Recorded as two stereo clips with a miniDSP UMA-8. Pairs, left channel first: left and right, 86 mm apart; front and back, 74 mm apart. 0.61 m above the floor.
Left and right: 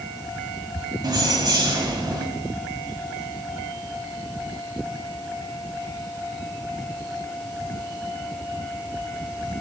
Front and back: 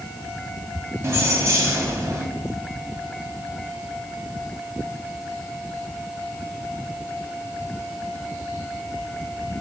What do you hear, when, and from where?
1.0 s keys jangling: 125° right, 2 m